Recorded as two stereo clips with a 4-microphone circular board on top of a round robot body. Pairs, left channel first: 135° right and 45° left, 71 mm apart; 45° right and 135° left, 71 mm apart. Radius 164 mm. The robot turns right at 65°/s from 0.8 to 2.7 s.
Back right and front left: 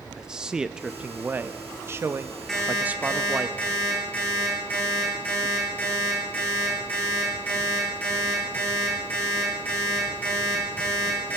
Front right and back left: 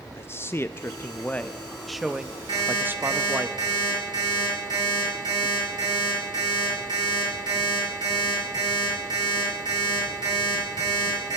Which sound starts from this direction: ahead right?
A man speaking, at 0.2 s.